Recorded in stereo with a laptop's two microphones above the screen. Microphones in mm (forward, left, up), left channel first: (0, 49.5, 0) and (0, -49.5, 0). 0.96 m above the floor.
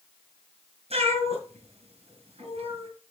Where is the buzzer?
No buzzer in this recording.